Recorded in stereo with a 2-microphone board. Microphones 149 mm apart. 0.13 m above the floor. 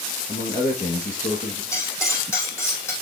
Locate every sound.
0.3 s a man speaking: 55° left (ahead or behind), 3 m
1.7 s cutlery clinking: 15° left (ahead or behind), 3.5 m